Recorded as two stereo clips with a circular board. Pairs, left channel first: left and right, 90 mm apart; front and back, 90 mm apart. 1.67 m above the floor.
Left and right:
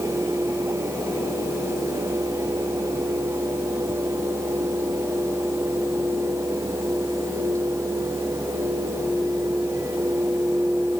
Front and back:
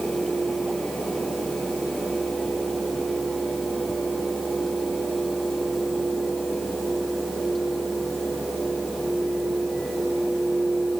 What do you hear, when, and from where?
Only background noise.